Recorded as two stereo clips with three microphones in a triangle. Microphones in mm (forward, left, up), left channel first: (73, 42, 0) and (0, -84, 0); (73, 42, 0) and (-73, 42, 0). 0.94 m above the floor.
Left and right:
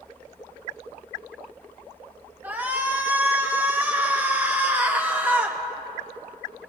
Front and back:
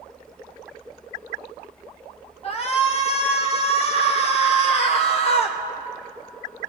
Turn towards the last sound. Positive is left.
turn(degrees=-45)